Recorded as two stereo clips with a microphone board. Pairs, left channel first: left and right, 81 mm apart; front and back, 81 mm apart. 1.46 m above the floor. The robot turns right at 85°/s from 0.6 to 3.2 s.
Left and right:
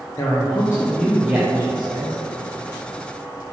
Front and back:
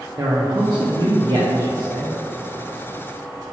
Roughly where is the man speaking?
Behind left.